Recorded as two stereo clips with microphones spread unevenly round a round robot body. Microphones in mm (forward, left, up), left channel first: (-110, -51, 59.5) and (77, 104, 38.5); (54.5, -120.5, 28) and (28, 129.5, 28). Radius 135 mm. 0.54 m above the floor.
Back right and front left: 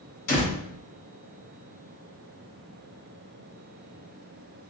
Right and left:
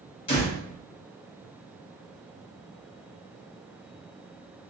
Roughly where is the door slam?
Behind right.